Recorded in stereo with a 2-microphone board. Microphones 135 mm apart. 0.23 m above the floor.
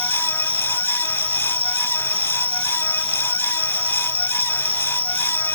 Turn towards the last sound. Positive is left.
turn(degrees=-15)  # may be behind; listen again after turning